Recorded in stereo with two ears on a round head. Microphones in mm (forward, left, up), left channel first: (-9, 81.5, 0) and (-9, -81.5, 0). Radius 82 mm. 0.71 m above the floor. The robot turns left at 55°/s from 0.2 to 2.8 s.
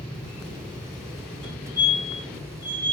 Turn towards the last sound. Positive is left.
turn(degrees=-60)  # may be behind; listen again after turning